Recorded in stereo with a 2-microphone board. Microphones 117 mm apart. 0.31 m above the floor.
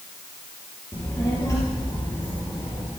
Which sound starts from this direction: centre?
A child speaking, at 0.9 s.